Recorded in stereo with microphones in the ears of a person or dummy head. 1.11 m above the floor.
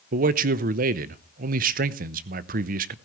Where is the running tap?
I don't hear a running tap.